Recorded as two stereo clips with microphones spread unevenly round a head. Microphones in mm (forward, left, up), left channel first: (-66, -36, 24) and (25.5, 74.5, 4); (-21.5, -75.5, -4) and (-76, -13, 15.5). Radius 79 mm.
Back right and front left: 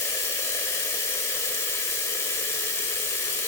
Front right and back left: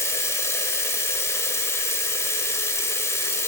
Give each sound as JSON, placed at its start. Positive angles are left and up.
{"t": 0.0, "sound": "running water", "azimuth_deg": -95, "distance_m": 1.5}